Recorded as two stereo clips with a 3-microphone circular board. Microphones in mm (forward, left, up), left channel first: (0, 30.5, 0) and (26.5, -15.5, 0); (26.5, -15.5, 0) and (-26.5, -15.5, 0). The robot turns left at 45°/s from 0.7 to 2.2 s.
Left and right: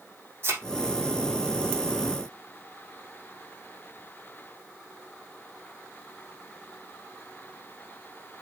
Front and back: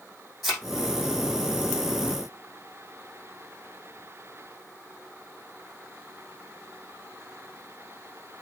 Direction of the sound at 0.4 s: 90° right.